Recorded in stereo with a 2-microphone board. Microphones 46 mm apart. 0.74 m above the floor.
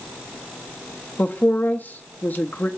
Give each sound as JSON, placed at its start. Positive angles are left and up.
{"t": 1.2, "sound": "a woman speaking", "side_deg": 40, "distance_m": 1.0}